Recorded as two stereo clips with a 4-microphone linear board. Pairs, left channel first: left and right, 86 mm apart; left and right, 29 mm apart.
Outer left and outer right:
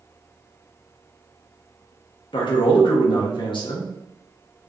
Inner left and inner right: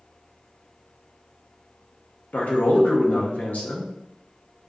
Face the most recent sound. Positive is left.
turn(degrees=70)  # may be behind; listen again after turning